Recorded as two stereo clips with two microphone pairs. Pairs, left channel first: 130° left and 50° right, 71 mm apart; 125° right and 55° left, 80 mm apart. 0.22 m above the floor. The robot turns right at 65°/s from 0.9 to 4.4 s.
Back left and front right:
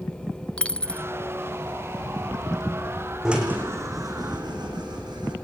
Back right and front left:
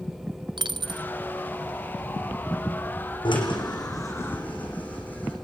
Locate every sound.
0.6 s a dropped coin: 55° left, 0.9 m; by 1.1 s 70° left, 0.9 m
3.2 s a drill: 130° right, 7.5 m; by 5.3 s 55° right, 7.5 m